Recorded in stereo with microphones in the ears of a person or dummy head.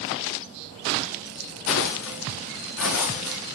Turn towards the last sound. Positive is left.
turn(degrees=75)  # may be behind; listen again after turning